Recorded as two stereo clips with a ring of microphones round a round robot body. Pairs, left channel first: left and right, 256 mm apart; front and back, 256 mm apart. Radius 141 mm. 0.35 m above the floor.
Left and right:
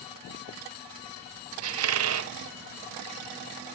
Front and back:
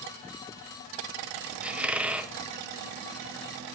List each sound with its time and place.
1.6 s a squeak: 95° right, 0.9 m